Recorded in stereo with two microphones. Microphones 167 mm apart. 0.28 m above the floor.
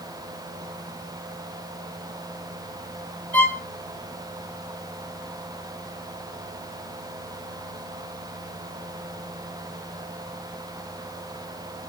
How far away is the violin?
About 6 m.